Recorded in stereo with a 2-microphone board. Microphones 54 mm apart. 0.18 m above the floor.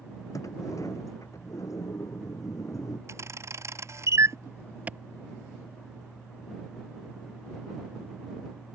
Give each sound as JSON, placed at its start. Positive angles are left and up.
{"t": 0.3, "sound": "a sliding door", "side_deg": 75}
{"t": 3.1, "sound": "a camera shutter", "side_deg": -60}
{"t": 4.9, "sound": "a clap", "side_deg": -25}